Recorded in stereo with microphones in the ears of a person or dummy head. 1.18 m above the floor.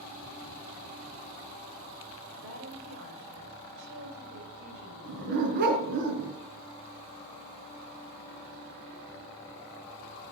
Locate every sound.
2.4 s a woman speaking: 65° right (ahead or behind), 4.5 m
5.0 s a dog barking: 55° right (ahead or behind), 3.5 m